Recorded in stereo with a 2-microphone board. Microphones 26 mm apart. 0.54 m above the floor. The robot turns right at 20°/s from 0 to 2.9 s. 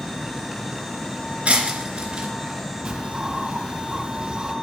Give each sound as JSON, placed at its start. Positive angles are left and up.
{"t": 1.4, "sound": "breaking glass", "side_deg": -50, "distance_m": 3.0}
{"t": 2.9, "sound": "a bird", "side_deg": -30, "distance_m": 2.0}